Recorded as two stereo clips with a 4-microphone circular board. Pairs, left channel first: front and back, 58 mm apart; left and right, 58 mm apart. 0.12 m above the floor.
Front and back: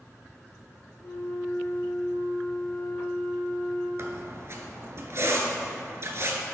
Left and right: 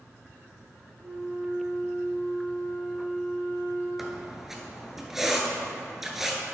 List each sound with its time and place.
1.0 s a flute: 45° right, 1.9 m
4.0 s a squeak: 175° right, 0.9 m